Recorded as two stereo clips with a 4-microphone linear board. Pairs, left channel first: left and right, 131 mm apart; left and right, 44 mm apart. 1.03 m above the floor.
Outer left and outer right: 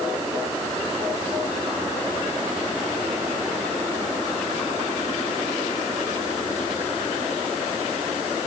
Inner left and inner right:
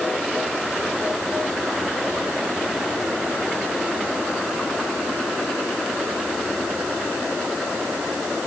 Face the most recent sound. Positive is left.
No sound to turn to.